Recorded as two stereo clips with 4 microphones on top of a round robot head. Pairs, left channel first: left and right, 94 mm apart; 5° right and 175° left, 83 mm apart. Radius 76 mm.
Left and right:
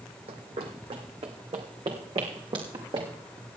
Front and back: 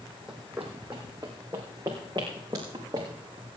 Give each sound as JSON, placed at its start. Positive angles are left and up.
{"t": 0.3, "sound": "running footsteps", "azimuth_deg": -100, "distance_m": 1.7}